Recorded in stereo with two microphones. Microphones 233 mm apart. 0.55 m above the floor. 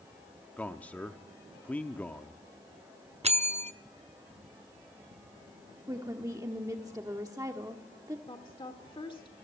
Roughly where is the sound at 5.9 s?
Centre.